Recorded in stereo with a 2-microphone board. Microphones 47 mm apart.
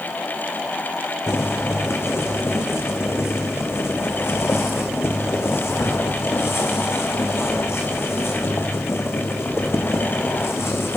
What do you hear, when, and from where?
1.3 s boiling: 65° left (ahead or behind), 2.5 m